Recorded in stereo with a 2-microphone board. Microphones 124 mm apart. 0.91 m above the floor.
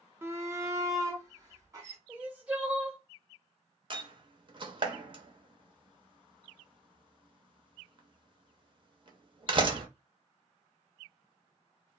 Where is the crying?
10° right (ahead or behind), 1.4 m.